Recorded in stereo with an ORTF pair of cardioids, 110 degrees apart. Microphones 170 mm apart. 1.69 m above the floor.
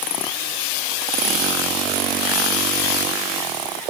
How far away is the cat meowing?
No cat meowing in this recording.